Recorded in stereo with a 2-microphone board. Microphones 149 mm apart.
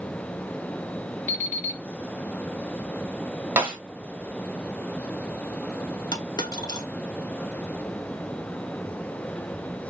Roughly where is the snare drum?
Centre.